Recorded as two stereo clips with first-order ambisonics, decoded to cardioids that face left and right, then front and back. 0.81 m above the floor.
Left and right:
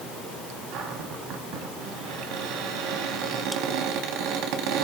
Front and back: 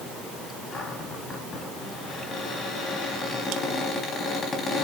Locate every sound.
0.7 s a cupboard door: 65° right, 3.5 m